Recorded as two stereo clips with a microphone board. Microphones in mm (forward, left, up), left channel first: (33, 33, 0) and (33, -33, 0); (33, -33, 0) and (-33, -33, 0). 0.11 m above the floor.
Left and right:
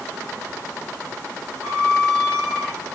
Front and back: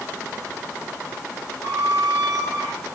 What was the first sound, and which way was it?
A squeak, 15° left.